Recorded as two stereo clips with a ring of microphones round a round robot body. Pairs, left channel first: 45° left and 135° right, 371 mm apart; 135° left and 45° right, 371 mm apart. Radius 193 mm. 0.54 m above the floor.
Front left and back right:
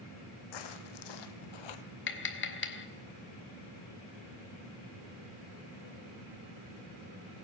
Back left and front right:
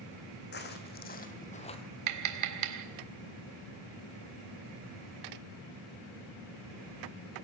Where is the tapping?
10° right, 1.9 m.